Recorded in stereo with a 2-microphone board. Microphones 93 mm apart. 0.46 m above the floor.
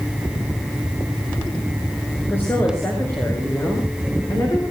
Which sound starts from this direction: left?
A woman speaking, at 2.3 s.